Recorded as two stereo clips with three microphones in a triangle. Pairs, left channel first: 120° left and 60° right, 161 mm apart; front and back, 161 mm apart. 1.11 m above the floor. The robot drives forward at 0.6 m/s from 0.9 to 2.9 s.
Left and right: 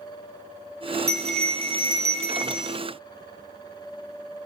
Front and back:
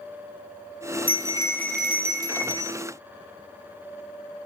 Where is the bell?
40° right, 0.7 m; by 2.8 s 150° right, 0.8 m.